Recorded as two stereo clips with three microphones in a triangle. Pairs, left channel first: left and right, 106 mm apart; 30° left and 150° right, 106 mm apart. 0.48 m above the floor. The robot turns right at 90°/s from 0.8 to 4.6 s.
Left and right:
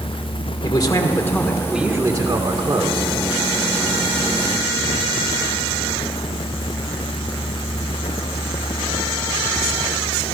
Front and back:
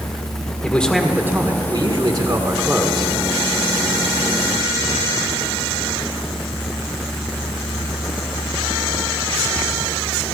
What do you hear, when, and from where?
0.6 s a man speaking: 105° left, 1.4 m; by 3.1 s 45° right, 1.4 m